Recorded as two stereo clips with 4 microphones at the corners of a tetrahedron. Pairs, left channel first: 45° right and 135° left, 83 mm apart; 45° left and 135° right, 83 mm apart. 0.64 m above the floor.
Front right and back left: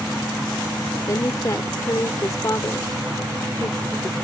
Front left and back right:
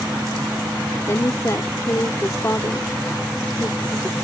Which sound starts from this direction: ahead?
A woman speaking, at 1.1 s.